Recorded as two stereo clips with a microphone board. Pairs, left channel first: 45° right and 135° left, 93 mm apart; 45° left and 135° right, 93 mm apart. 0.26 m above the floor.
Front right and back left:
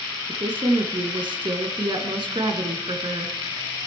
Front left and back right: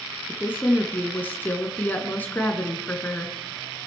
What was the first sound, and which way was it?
A woman speaking, 115° left.